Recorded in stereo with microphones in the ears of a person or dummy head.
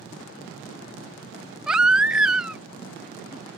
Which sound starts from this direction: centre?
A baby crying, at 1.7 s.